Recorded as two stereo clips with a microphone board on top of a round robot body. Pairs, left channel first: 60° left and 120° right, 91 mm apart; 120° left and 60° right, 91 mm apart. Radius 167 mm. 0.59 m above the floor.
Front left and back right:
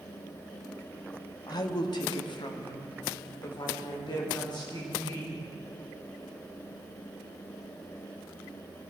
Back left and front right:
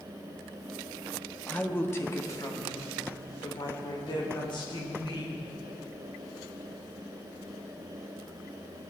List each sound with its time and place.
1.5 s a woman speaking: 50° left, 1.6 m; by 5.4 s 100° left, 4.5 m